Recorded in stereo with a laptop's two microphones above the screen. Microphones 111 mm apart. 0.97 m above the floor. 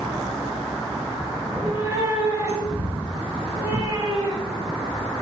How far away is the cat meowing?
About 2.5 m.